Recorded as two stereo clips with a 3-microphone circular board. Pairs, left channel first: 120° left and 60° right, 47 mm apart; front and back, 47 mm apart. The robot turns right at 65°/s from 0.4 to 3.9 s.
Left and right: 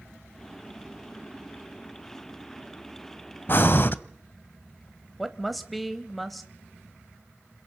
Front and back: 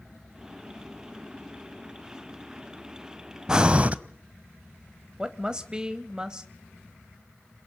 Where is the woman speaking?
145° right, 0.9 m.